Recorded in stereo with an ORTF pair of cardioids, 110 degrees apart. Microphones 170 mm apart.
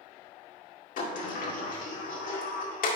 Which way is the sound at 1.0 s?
55° left.